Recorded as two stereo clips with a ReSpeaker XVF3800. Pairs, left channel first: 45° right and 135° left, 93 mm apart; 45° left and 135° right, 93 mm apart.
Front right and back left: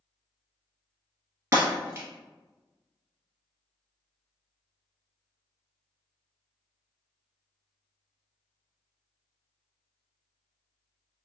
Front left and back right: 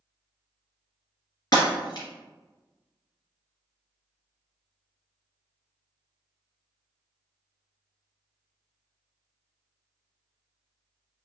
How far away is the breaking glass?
About 1.7 m.